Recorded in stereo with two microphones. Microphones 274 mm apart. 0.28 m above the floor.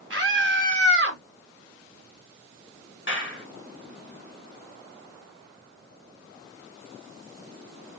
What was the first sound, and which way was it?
A scream, 45° right (ahead or behind).